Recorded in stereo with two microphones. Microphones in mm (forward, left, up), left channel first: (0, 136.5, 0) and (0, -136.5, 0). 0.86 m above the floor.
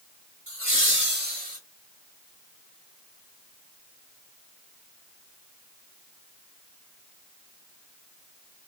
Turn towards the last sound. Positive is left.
turn(degrees=-25)  # may be behind; listen again after turning